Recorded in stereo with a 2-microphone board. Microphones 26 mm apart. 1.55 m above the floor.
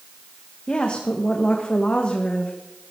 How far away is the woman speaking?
About 1.6 m.